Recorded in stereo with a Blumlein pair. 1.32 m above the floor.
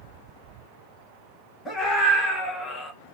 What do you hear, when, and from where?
1.6 s a scream: 15° left, 3 m; by 2.9 s 10° left, 1.4 m